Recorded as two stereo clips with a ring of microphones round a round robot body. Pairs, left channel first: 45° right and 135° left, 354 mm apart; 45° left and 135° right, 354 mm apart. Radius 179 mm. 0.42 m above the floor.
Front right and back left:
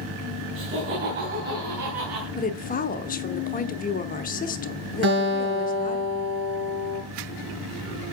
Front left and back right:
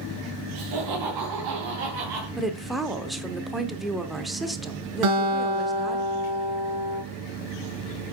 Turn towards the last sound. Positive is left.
turn(degrees=-165)